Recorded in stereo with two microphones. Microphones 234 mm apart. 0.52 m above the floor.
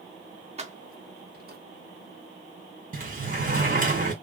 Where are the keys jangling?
30° right (ahead or behind), 0.6 m; by 1.6 s 40° right (ahead or behind), 0.7 m.